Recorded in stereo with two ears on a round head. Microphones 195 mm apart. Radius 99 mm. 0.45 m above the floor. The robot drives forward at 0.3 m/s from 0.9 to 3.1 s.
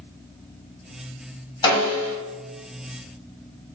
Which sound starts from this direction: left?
A snare drum, at 1.6 s.